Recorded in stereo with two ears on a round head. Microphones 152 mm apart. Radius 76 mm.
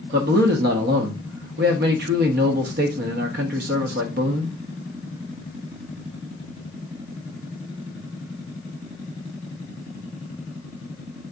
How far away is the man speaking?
About 0.8 m.